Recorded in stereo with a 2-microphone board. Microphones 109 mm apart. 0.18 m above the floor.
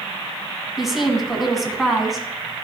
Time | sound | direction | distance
0.8 | a woman speaking | 5° right (ahead or behind) | 1.6 m